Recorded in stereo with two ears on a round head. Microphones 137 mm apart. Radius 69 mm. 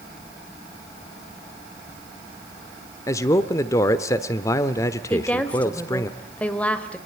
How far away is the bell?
I don't hear a bell.